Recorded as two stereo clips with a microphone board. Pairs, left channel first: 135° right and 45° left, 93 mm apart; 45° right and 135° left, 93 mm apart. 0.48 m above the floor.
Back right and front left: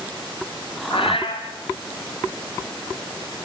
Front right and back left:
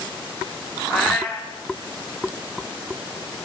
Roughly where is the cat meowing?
Behind right.